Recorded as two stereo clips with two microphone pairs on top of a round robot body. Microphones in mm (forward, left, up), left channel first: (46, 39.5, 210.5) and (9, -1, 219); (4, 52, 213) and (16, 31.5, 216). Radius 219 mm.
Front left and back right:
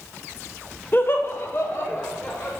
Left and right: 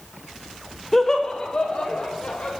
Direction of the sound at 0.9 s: 50° left.